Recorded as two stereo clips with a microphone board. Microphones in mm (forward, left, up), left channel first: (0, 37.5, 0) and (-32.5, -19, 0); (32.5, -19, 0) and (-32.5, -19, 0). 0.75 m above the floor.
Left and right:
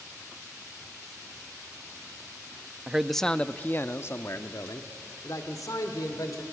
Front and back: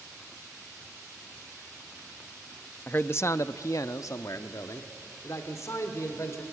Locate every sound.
2.9 s a man speaking: 50° right, 0.6 m; by 6.4 s 40° left, 2 m